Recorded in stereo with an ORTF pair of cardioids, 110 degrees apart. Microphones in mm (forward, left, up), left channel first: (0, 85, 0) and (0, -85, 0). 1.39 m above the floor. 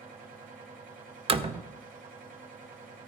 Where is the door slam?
35° right, 0.6 m.